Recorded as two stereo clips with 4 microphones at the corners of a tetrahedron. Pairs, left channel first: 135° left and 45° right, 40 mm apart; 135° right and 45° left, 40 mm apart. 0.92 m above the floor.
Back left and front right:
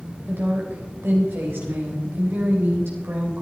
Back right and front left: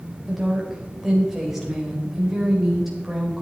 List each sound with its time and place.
0.3 s a woman speaking: 35° right, 4 m